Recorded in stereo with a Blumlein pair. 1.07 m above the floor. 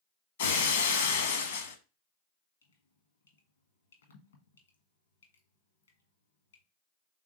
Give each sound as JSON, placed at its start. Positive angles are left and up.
{"t": 0.4, "sound": "breaking glass", "azimuth_deg": 60, "distance_m": 0.9}
{"t": 2.6, "sound": "dripping", "azimuth_deg": 70, "distance_m": 1.1}